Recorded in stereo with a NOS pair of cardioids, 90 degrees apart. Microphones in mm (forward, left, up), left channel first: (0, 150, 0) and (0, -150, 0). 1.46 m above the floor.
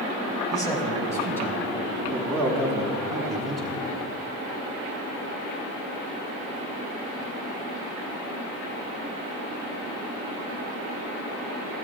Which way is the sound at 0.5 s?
10° left.